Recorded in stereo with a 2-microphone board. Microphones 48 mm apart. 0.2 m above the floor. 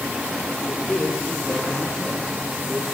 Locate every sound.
0.6 s a man speaking: 20° left (ahead or behind), 6 m; by 2.9 s 10° right (ahead or behind), 3.5 m